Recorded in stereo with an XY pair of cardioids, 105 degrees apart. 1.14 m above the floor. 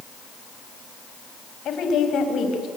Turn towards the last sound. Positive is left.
turn(degrees=70)